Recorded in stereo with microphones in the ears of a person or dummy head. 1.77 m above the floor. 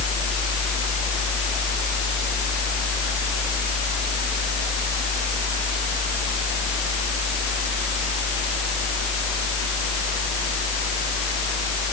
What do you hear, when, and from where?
Only background noise.